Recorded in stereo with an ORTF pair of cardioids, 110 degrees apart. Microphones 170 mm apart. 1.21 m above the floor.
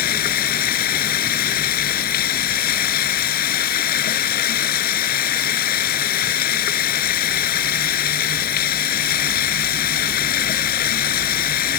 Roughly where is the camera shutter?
I don't hear a camera shutter.